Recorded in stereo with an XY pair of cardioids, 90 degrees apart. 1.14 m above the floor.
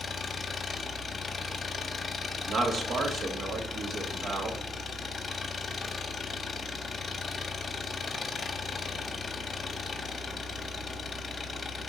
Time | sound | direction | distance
0.0 | an engine running | 45° left | 0.9 m
2.5 | a man speaking | 65° right | 1.8 m